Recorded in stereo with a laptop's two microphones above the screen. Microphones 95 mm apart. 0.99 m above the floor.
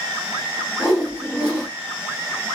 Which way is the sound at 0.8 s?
10° left (ahead or behind).